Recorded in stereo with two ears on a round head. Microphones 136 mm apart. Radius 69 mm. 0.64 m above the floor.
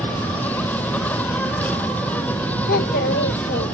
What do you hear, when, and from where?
0.0 s an insect: 10° left (ahead or behind)
2.7 s a child speaking: 70° left (ahead or behind)